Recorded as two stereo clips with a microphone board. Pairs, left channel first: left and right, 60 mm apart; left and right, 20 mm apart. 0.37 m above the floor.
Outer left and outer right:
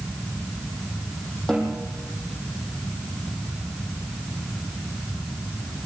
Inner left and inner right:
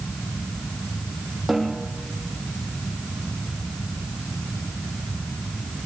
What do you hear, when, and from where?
1.5 s a snare drum: 10° left (ahead or behind), 7 m